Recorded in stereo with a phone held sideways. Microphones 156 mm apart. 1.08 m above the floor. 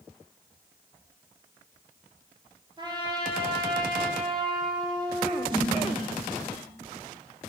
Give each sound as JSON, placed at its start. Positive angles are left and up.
{"t": 2.8, "sound": "a trumpet", "side_deg": -30, "distance_m": 1.9}
{"t": 5.5, "sound": "a snare drum", "side_deg": -35, "distance_m": 3.0}